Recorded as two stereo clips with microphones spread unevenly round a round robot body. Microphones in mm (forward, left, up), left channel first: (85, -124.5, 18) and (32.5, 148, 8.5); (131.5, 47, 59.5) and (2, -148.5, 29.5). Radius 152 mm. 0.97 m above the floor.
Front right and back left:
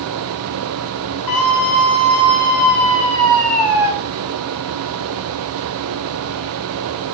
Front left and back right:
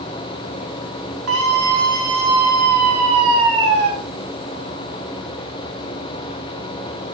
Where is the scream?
110° right, 3 m; by 3.9 s straight behind, 2 m.